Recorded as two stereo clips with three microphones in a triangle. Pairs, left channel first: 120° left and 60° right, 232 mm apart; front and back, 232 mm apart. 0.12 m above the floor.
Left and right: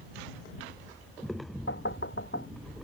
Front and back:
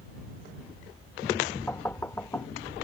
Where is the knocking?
80° left.